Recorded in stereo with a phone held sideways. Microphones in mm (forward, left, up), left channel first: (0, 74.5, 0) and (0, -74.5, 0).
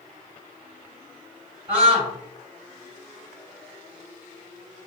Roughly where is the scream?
Right.